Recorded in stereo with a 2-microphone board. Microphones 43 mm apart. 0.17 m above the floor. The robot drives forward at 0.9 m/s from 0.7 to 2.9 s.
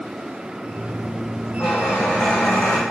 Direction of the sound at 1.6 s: 35° left (ahead or behind).